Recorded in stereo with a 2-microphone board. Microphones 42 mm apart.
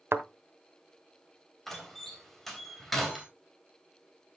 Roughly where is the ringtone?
I don't hear a ringtone.